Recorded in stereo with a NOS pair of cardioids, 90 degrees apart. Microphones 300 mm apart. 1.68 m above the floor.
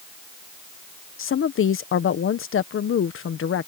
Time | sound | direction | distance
1.2 | a woman speaking | 45° left | ?